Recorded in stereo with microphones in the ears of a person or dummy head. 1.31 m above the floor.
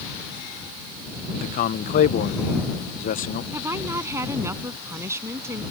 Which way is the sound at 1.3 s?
45° left (ahead or behind).